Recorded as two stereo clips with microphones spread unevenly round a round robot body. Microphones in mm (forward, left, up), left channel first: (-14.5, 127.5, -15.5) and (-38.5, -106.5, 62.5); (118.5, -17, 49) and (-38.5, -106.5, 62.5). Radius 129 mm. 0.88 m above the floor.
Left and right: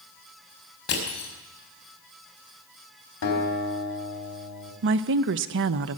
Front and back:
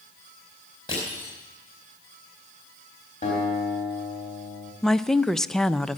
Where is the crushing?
100° left, 4.5 m.